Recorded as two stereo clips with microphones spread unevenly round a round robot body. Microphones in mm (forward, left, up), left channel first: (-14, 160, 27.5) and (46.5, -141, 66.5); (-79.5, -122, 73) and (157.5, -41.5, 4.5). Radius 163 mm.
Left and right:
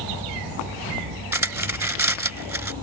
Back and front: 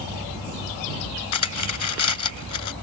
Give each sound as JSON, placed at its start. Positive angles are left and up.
{"t": 1.3, "sound": "cutlery clinking", "azimuth_deg": -160}